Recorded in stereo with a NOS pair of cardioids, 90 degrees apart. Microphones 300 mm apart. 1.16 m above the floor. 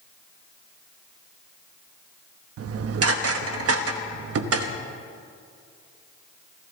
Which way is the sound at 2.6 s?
55° right.